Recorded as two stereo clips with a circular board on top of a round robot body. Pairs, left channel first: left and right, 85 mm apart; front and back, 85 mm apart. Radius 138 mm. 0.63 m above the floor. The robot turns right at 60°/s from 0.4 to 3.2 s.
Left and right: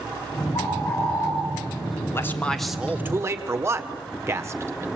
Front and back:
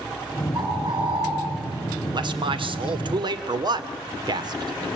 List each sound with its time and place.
0.5 s a bird: 115° left, 4 m; by 1.3 s 160° left, 4 m
2.1 s a man speaking: 150° left, 1.9 m; by 4.9 s 150° right, 1.9 m